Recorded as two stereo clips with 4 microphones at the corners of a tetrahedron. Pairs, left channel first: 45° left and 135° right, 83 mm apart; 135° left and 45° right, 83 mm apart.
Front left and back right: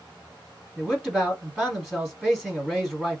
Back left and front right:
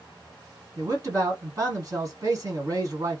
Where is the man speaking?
55° right, 1.4 m.